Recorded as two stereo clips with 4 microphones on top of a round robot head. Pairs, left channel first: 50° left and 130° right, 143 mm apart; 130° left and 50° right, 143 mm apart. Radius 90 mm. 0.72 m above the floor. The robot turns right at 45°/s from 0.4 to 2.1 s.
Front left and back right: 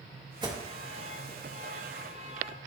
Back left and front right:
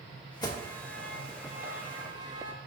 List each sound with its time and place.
0.4 s an alarm: straight behind, 1.4 m; by 2.5 s 100° right, 1.4 m